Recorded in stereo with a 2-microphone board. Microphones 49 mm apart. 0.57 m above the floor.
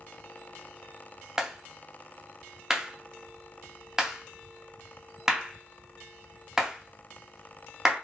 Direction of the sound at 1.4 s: 10° right (ahead or behind).